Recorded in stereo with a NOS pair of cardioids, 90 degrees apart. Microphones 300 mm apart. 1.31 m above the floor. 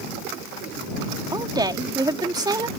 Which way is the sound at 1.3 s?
15° right.